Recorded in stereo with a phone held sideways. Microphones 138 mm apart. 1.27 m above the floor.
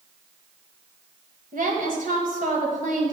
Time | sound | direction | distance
1.5 | a woman speaking | 75° right (ahead or behind) | 1.3 m